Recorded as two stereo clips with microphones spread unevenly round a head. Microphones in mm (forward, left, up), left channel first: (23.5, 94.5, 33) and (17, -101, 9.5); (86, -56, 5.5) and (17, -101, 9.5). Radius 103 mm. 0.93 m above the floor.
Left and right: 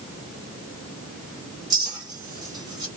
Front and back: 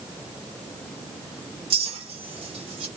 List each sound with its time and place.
1.7 s a clink: 165° right, 1.2 m